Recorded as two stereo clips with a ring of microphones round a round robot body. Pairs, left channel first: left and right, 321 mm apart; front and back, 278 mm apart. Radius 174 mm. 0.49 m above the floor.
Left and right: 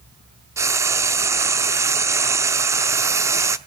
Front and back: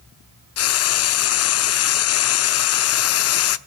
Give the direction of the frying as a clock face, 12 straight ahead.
12 o'clock.